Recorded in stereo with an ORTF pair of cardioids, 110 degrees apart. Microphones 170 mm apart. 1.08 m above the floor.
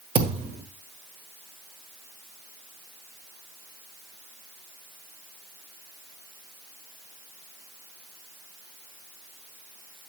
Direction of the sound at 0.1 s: 40° right.